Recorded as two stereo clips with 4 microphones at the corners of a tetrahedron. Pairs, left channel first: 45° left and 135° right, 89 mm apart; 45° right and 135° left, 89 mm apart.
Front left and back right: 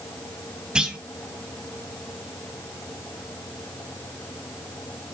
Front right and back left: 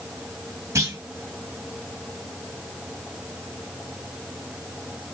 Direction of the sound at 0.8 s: 150° left.